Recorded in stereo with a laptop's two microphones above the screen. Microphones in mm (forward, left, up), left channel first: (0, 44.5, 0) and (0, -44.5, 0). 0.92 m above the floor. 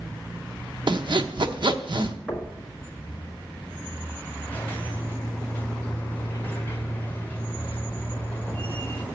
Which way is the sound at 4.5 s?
25° left (ahead or behind).